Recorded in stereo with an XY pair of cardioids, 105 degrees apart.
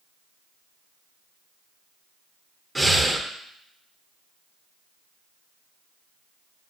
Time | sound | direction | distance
2.8 | breathing | 10° right | 0.6 m